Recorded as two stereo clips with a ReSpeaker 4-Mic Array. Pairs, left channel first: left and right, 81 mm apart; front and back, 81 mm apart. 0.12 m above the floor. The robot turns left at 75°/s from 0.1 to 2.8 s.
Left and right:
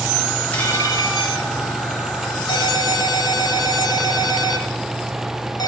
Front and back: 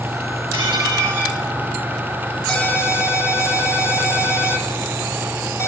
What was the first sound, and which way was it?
Dishes clattering, 160° left.